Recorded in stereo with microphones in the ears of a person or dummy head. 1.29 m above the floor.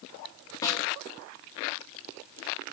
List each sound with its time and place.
0.6 s a snare drum: 20° left (ahead or behind), 1.5 m